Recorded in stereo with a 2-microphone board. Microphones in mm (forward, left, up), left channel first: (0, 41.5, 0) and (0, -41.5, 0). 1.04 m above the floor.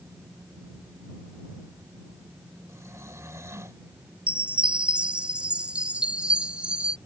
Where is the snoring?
35° right (ahead or behind).